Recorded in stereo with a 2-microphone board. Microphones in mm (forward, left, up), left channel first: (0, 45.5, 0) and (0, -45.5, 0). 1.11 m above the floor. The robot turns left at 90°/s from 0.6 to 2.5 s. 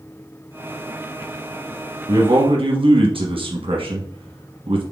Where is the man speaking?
45° right, 1.0 m; by 4.8 s 80° right, 1.0 m.